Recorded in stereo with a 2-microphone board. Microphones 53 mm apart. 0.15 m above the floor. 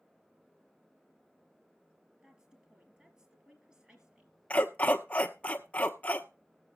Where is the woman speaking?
15° right (ahead or behind), 3.5 m.